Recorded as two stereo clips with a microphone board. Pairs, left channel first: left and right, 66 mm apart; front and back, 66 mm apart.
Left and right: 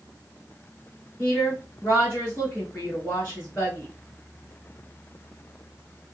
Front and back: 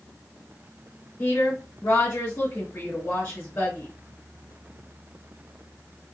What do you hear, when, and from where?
1.2 s a woman speaking: 25° left, 2 m